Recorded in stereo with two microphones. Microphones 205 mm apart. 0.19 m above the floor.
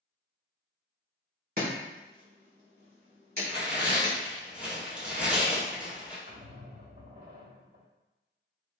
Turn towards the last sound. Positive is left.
turn(degrees=-50)  # may be behind; listen again after turning